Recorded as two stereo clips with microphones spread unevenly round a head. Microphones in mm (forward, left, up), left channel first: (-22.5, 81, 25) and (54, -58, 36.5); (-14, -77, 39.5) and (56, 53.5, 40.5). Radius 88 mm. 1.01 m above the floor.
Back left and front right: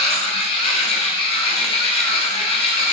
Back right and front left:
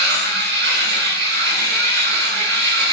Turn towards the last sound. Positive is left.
turn(degrees=65)